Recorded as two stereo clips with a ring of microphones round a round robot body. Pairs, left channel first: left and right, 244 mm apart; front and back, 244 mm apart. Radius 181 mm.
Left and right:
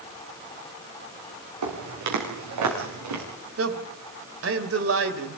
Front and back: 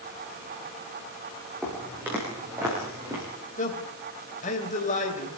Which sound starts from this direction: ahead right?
A man speaking, at 3.6 s.